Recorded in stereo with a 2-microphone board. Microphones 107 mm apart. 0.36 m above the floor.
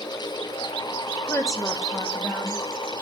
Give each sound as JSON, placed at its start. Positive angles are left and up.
{"t": 1.3, "sound": "a woman speaking", "side_deg": 25, "distance_m": 1.2}